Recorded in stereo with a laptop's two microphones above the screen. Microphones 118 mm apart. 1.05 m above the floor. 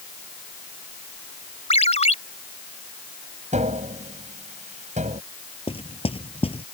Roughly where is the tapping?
Right.